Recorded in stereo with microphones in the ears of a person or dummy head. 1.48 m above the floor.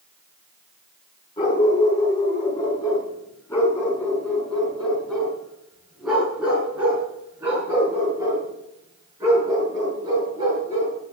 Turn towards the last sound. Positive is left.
turn(degrees=-25)  # may be behind; listen again after turning